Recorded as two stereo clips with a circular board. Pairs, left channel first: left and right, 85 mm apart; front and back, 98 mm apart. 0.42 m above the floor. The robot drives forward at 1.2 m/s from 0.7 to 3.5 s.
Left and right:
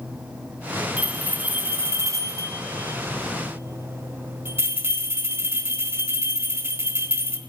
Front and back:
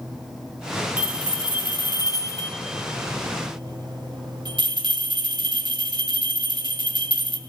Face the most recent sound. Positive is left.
turn(degrees=-150)